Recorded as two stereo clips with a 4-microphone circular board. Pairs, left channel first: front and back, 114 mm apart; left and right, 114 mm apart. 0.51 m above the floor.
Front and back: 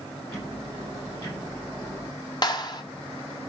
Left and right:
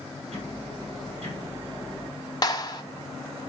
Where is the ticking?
60° right, 5 m.